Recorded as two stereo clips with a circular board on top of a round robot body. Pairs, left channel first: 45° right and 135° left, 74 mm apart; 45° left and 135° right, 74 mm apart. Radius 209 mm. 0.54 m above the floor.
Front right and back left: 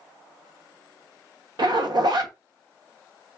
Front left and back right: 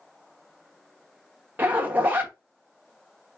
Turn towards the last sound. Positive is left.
turn(degrees=160)